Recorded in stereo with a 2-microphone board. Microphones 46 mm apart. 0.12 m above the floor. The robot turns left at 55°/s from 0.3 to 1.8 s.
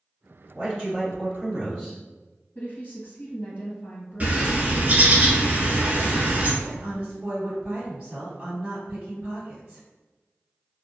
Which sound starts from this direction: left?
A woman speaking, at 2.5 s.